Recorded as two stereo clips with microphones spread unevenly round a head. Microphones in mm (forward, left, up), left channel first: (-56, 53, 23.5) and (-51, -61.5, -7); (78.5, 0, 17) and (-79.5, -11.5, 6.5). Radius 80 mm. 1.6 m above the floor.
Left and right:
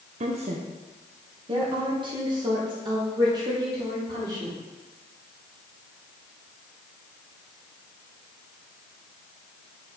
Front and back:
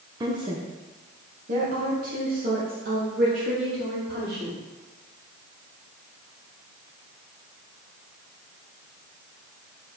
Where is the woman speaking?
110° right, 0.7 m; by 4.6 s 145° right, 3 m.